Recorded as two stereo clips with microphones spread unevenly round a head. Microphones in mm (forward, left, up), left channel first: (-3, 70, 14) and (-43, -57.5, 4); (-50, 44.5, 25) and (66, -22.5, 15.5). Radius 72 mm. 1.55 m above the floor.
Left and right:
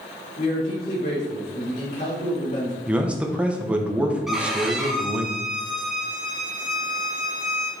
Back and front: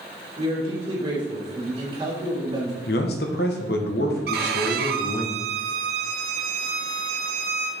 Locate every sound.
0.4 s a man speaking: 25° left, 3.5 m
2.9 s a man speaking: 170° left, 1.1 m
4.3 s a violin: 20° right, 0.9 m